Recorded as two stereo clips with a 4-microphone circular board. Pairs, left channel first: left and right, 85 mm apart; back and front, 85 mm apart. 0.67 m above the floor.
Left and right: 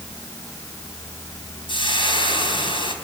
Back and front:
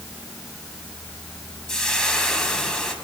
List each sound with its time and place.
1.7 s frying: 95° left, 4.5 m